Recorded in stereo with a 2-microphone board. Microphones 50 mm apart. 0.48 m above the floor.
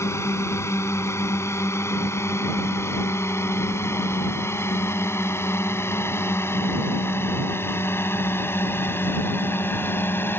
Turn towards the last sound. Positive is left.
turn(degrees=45)  # may be behind; listen again after turning